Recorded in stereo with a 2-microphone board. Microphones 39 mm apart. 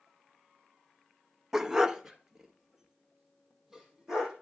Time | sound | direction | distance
1.5 | a dog barking | 10° right (ahead or behind) | 0.5 m